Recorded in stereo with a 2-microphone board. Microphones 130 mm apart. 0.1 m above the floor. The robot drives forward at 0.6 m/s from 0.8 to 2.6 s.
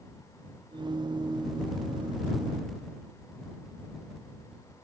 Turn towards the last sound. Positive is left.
No sound to turn to.